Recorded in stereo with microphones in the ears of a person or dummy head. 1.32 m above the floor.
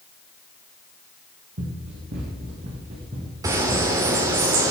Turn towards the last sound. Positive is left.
turn(degrees=-20)  # may be behind; listen again after turning